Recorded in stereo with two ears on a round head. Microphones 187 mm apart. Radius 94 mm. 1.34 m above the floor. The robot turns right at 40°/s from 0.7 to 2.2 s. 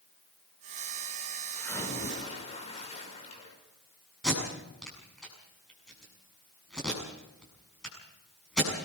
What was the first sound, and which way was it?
A splash, 5° left (ahead or behind).